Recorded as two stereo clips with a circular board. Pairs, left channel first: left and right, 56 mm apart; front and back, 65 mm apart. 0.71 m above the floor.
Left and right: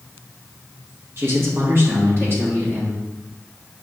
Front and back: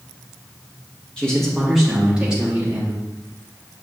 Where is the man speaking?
70° right, 1.2 m; by 3.0 s 120° right, 1.5 m.